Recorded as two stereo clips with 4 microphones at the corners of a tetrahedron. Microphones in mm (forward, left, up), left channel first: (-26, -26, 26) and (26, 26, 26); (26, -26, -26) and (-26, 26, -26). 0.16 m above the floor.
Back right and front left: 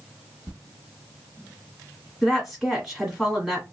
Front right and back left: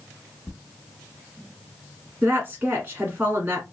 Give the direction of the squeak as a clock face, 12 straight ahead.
10 o'clock.